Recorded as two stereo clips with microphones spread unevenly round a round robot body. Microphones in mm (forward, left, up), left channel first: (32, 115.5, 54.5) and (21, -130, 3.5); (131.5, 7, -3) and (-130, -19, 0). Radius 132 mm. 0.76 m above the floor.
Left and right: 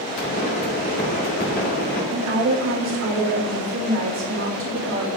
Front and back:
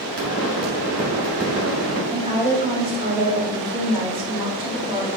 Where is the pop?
150° left, 3 m.